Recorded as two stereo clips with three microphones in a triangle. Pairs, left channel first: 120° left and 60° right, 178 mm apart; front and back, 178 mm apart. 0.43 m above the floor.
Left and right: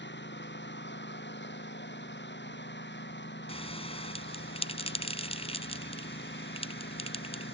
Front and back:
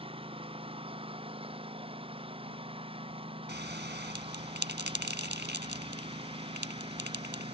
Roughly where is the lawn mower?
Behind left.